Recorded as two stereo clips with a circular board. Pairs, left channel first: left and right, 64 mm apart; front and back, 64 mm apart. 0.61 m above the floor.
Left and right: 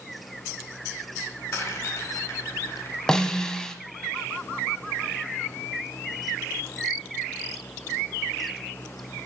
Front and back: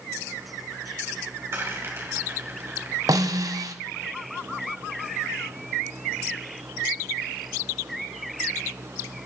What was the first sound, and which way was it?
A rattle, 130° left.